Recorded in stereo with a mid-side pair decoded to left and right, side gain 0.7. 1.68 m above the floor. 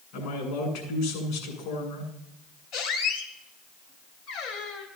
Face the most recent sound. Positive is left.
turn(degrees=65)